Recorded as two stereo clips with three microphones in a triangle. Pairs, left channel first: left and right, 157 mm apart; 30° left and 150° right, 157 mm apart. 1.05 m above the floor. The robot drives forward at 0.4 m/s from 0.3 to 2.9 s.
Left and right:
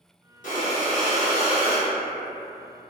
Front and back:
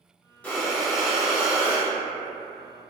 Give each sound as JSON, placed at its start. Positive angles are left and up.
{"t": 0.4, "sound": "breathing", "azimuth_deg": 110, "distance_m": 1.0}